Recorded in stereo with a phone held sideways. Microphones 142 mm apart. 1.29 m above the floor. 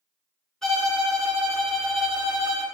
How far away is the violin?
About 0.9 m.